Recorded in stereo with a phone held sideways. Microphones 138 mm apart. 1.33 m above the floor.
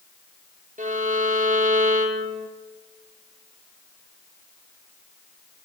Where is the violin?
65° right (ahead or behind), 1.0 m.